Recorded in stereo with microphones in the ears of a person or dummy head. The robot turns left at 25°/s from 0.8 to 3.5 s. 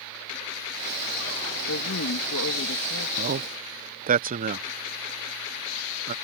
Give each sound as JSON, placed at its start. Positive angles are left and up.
{"t": 1.7, "sound": "a woman speaking", "azimuth_deg": 100}
{"t": 3.2, "sound": "a man speaking", "side_deg": -45}